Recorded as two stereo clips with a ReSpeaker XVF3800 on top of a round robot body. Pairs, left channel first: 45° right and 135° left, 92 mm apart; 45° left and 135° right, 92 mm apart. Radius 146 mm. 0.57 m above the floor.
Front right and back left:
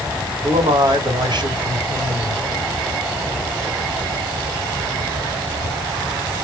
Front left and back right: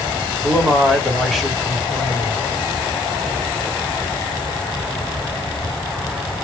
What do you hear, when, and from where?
0.4 s a man speaking: 135° left, 1.8 m